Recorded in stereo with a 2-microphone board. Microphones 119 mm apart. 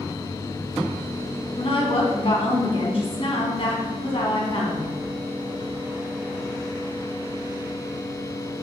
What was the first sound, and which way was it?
A woman speaking, 55° left (ahead or behind).